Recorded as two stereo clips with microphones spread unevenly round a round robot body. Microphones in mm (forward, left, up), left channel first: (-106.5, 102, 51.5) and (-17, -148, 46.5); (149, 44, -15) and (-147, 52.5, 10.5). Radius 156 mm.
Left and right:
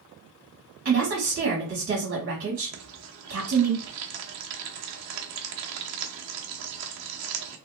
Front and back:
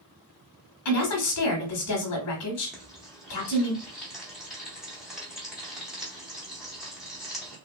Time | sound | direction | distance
0.8 | a woman speaking | 20° right | 1.0 m
2.7 | frying | 90° right | 0.7 m